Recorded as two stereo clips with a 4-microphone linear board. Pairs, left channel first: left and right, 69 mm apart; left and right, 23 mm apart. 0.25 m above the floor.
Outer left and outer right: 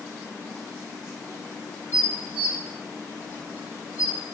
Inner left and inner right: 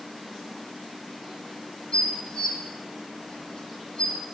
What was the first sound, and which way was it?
Dishes clattering, 30° left (ahead or behind).